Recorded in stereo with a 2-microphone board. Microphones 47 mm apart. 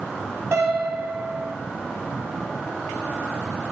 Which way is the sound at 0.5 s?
75° right (ahead or behind).